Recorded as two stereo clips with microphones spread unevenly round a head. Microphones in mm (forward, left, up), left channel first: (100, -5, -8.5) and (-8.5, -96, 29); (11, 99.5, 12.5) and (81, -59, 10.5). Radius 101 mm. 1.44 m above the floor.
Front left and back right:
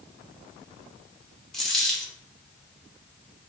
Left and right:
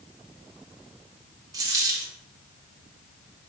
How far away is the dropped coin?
About 0.7 m.